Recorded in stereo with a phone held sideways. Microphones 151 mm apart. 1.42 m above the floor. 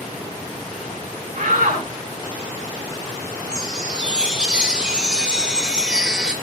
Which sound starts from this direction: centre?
A chime, at 3.5 s.